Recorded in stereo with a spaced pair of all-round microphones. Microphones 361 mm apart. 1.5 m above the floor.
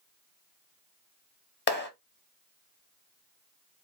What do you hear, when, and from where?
1.7 s a clap: 30° left (ahead or behind), 0.7 m